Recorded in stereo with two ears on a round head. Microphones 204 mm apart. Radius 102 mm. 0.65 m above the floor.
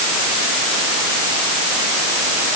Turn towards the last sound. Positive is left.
No sound to turn to.